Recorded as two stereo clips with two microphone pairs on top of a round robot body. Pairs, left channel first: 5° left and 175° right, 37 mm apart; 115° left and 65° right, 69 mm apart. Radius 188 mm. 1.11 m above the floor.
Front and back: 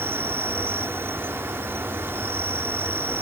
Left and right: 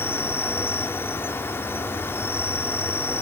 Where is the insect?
175° left.